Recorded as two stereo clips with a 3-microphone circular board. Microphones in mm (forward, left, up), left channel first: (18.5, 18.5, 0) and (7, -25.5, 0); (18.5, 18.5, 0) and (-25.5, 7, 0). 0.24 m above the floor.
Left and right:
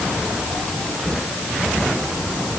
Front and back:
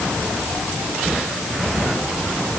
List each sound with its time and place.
Only background noise.